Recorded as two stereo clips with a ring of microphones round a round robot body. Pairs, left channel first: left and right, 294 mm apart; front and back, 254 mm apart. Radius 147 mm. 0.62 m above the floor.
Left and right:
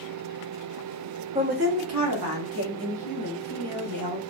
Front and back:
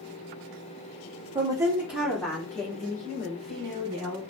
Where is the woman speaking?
135° right, 0.8 m; by 4.2 s 80° right, 3.5 m.